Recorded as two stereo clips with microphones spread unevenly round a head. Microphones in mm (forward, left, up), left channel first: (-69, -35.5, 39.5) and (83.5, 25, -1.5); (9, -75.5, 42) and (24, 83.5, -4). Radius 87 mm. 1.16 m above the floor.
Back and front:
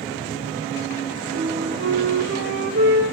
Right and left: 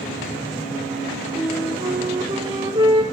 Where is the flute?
25° left, 5 m.